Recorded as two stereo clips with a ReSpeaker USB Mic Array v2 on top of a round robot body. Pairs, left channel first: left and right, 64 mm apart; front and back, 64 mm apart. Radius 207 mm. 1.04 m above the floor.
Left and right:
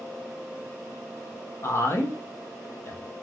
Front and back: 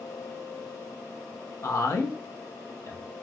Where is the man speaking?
40° left, 1.0 m.